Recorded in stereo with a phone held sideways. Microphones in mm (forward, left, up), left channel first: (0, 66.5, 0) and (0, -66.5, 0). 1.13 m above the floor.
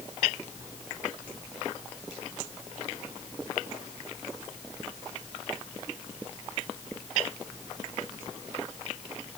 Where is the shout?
I don't hear a shout.